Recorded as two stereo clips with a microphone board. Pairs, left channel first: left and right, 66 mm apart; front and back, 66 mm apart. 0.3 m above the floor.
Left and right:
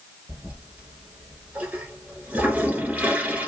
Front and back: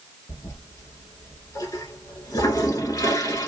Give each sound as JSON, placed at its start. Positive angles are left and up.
{"t": 0.3, "sound": "a toilet flushing", "azimuth_deg": -25, "distance_m": 1.0}